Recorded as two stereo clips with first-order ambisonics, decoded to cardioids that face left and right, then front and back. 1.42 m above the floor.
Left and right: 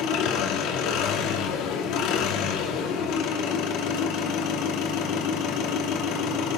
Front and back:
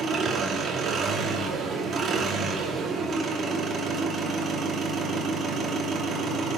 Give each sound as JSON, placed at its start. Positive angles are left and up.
{"t": 0.0, "sound": "an engine running", "azimuth_deg": 120, "distance_m": 2.0}